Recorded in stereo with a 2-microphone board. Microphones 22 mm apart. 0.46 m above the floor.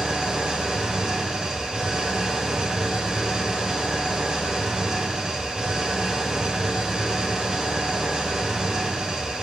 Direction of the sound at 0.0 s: 40° right (ahead or behind).